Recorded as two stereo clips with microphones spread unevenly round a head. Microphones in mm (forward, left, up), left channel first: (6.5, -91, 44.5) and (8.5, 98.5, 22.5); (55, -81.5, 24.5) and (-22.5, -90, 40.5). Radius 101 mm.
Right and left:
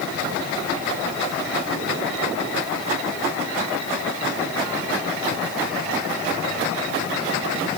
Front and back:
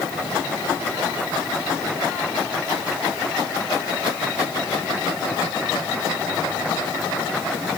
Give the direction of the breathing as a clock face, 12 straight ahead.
I don't hear breathing.